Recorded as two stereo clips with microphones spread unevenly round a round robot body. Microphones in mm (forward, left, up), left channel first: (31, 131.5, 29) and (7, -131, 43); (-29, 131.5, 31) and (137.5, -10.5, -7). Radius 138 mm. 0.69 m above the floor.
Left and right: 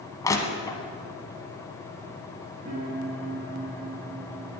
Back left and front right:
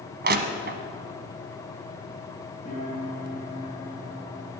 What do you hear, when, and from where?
0.2 s crushing: 5° left, 1.1 m
2.6 s a piano: 150° right, 5 m